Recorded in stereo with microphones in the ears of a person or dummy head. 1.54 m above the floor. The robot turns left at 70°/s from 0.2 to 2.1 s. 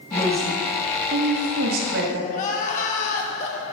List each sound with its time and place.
0.1 s a woman speaking: 15° left, 2.5 m; by 2.2 s 115° right, 2.5 m
2.3 s crying: 45° left (ahead or behind), 1.7 m